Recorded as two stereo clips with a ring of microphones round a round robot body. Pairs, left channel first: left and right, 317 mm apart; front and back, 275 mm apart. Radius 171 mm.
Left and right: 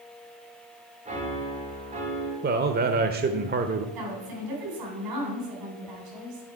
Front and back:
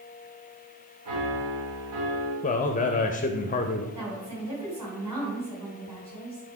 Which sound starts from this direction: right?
A woman speaking, at 4.0 s.